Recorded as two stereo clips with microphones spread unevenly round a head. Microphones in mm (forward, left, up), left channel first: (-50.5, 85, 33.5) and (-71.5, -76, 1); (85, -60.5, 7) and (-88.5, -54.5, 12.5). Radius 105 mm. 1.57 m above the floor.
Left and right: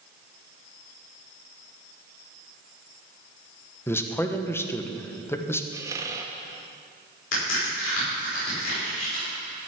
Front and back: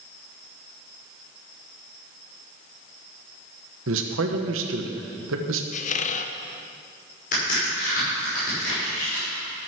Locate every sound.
3.9 s a man speaking: 155° left, 1.3 m
5.7 s a squeak: 15° right, 0.6 m
7.3 s a crack: 50° left, 5.5 m